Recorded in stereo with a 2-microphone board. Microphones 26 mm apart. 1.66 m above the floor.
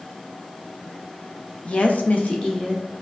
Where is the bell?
No bell in this recording.